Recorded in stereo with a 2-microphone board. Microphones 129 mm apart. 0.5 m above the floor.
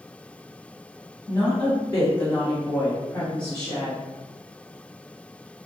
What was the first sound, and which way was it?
A woman speaking, 30° left (ahead or behind).